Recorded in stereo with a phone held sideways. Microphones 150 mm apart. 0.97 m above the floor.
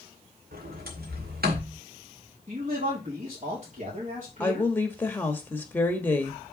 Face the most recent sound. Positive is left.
turn(degrees=10)  # may be behind; listen again after turning